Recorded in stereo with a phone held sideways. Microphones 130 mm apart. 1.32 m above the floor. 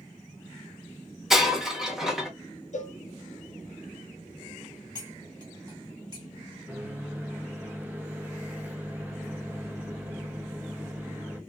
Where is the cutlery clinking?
30° right (ahead or behind), 1.6 m.